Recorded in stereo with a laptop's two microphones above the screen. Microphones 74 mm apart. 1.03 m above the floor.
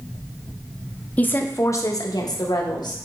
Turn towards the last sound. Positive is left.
turn(degrees=70)  # may be behind; listen again after turning